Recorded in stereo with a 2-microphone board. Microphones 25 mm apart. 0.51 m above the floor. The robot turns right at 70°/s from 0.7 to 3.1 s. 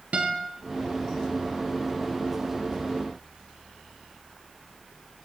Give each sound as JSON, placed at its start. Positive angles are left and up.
{"t": 0.1, "sound": "a guitar", "side_deg": -70, "distance_m": 4.0}